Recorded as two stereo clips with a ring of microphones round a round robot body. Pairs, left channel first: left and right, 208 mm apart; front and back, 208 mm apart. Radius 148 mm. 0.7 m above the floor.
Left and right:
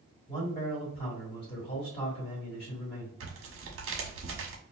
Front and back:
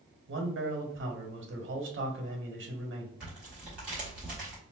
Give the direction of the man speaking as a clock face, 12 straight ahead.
7 o'clock.